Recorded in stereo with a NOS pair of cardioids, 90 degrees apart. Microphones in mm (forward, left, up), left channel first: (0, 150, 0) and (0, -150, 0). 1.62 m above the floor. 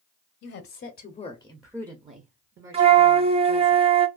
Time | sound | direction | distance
0.4 | a woman speaking | 55° left | 0.8 m
2.7 | a flute | 20° right | 0.6 m